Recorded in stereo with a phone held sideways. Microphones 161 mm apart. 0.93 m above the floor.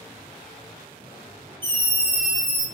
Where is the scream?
30° right (ahead or behind), 0.9 m; by 2.6 s 5° left (ahead or behind), 1.0 m.